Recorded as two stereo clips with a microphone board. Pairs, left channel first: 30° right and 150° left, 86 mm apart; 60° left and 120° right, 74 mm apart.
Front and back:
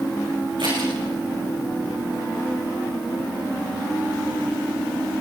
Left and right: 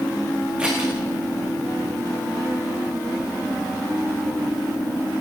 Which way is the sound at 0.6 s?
165° left.